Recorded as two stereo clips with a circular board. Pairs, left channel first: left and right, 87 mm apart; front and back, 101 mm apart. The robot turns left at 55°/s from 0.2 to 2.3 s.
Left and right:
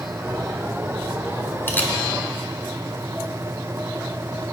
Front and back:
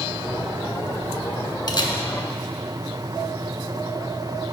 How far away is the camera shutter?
About 0.9 m.